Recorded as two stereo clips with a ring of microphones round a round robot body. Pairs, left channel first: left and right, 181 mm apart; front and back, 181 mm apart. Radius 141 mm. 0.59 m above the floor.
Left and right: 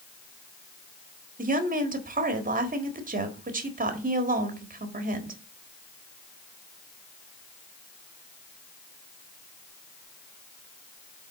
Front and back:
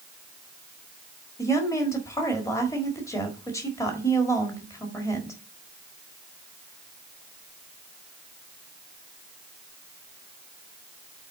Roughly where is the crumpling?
No crumpling in this recording.